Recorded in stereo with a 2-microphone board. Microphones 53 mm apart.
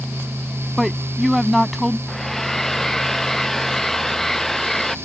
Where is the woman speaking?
Centre (ahead or behind).